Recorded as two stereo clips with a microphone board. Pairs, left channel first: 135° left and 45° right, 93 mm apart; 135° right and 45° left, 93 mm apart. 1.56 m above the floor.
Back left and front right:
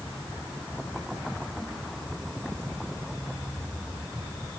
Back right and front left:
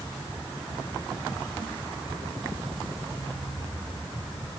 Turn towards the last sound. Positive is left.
No sound to turn to.